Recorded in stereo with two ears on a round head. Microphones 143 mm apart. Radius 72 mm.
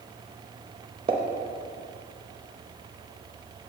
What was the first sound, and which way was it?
A pop, 30° right (ahead or behind).